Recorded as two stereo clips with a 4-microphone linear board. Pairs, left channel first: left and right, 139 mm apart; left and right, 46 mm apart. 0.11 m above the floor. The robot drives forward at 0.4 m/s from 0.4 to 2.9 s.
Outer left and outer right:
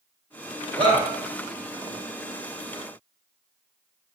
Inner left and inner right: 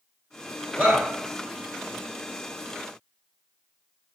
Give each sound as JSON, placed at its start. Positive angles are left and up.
{"t": 0.8, "sound": "a shout", "side_deg": -35, "distance_m": 1.6}